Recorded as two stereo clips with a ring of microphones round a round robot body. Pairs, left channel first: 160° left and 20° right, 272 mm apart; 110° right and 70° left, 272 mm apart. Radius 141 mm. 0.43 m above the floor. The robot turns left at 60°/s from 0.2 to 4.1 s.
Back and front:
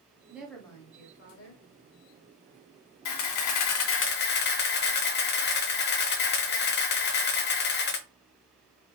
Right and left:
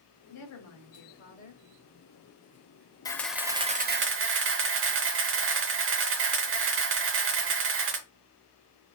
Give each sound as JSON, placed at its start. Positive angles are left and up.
{"t": 0.3, "sound": "a woman speaking", "azimuth_deg": -105, "distance_m": 2.0}
{"t": 3.0, "sound": "a camera shutter", "azimuth_deg": 170, "distance_m": 0.9}